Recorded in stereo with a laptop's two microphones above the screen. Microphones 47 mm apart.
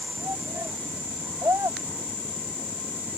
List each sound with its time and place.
0.2 s a shout: 90° right; by 3.2 s 85° right